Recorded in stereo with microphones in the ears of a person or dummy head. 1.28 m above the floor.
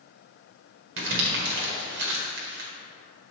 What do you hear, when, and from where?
1.0 s crumpling: 70° right (ahead or behind), 1.5 m